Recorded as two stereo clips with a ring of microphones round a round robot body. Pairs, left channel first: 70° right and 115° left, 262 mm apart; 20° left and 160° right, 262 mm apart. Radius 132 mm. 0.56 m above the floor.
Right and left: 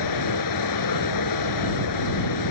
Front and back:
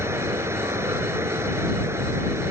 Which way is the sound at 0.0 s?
75° right.